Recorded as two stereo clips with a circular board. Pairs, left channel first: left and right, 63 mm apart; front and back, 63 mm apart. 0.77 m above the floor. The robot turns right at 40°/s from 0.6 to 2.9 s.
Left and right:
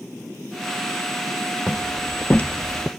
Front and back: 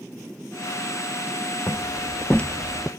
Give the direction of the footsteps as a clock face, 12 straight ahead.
11 o'clock.